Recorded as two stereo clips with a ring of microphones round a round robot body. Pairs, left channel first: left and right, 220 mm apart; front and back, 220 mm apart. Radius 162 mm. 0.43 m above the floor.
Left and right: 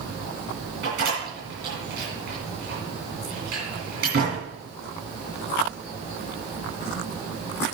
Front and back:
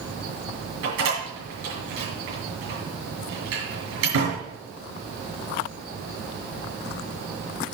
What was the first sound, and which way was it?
A door slam, 150° right.